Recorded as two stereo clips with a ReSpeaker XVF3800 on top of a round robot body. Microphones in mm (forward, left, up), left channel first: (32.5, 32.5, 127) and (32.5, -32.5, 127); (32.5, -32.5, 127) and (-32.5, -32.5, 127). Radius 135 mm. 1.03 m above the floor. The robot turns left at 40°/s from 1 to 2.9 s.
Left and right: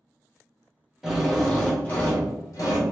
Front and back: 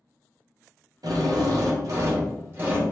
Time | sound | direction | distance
1.0 | a drill | 175° right | 1.0 m